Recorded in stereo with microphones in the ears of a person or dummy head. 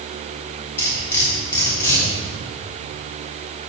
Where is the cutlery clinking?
15° left (ahead or behind), 3.5 m.